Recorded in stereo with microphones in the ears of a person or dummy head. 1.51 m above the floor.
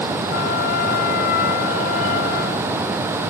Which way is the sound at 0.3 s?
65° left (ahead or behind).